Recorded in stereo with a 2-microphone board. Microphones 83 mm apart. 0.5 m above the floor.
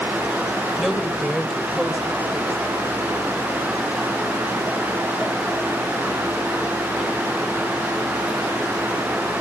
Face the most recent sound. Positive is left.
turn(degrees=0)  # may be behind; listen again after turning